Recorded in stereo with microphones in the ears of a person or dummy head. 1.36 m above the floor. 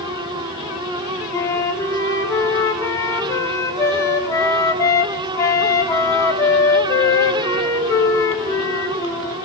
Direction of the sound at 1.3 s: 20° left (ahead or behind).